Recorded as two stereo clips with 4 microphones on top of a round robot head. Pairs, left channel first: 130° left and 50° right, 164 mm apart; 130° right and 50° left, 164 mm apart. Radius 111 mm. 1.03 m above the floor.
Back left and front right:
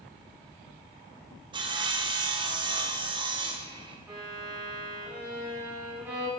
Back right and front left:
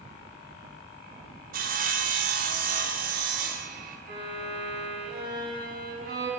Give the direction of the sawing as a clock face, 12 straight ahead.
12 o'clock.